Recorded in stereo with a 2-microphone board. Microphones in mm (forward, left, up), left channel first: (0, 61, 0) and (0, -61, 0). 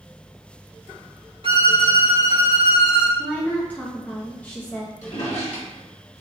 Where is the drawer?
60° left (ahead or behind), 1.4 m.